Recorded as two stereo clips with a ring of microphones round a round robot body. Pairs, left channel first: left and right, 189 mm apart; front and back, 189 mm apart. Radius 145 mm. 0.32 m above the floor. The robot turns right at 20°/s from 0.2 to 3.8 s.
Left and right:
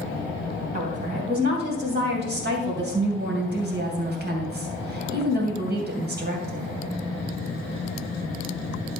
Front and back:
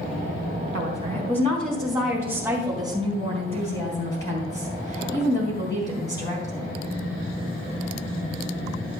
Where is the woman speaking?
135° right, 2.5 m; by 6.7 s 75° right, 2.5 m.